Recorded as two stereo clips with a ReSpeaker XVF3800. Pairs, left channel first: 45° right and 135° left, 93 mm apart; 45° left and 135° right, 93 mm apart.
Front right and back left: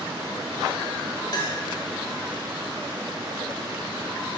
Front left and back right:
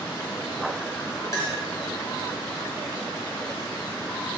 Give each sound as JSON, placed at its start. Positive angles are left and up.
{"t": 1.3, "sound": "a clink", "azimuth_deg": -10, "distance_m": 2.5}